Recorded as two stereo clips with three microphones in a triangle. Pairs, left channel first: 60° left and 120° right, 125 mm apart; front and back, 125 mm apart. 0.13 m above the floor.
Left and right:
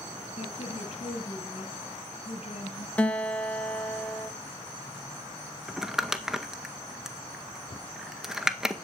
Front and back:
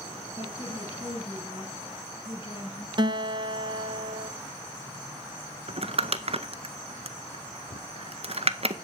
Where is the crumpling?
155° left, 0.7 m.